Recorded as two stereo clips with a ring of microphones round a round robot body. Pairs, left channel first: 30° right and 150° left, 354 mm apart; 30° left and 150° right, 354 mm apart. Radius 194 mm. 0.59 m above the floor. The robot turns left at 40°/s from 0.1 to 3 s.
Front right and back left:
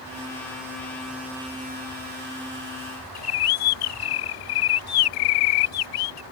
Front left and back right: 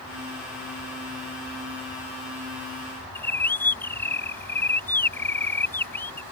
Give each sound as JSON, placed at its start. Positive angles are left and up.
{"t": 3.1, "sound": "a bird", "azimuth_deg": -55}